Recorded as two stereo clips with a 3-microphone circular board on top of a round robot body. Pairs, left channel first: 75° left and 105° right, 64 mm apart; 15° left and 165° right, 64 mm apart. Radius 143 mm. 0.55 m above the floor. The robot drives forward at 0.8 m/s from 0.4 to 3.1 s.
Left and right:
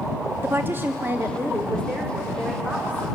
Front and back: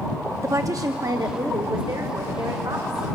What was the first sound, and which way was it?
A woman speaking, 150° right.